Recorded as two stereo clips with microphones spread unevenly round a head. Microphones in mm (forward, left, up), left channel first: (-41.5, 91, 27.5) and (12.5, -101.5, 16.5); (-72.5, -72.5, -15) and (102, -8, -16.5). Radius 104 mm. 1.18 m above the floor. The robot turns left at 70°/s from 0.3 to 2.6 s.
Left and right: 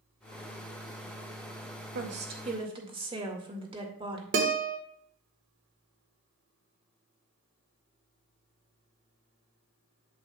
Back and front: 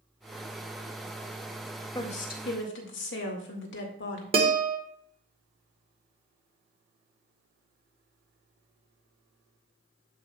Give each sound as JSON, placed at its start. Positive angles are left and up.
{"t": 1.9, "sound": "a woman speaking", "azimuth_deg": -95, "distance_m": 2.0}
{"t": 4.3, "sound": "a guitar", "azimuth_deg": -35, "distance_m": 1.4}